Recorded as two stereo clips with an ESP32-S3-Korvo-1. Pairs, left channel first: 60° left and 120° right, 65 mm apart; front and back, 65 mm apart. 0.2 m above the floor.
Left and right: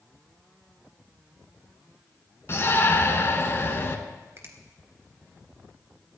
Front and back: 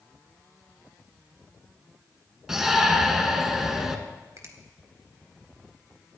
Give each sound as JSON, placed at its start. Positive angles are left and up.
{"t": 2.5, "sound": "a shout", "azimuth_deg": 95, "distance_m": 1.8}
{"t": 4.4, "sound": "a finger snap", "azimuth_deg": -160, "distance_m": 1.8}